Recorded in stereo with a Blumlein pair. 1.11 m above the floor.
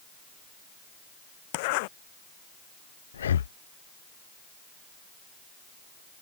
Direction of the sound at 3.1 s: 65° left.